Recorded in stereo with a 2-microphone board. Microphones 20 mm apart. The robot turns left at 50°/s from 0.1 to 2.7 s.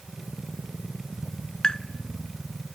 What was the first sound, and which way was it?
Tapping, 45° left (ahead or behind).